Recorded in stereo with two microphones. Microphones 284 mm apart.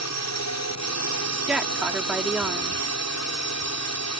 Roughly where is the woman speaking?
Centre.